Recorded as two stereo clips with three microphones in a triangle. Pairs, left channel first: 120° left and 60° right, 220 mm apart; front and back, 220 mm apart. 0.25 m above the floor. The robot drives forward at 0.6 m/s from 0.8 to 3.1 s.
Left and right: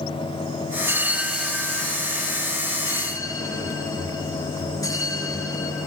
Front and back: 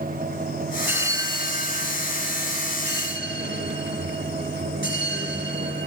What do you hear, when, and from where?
0.8 s a bell: 110° right, 1.0 m; by 5.9 s 170° right, 1.8 m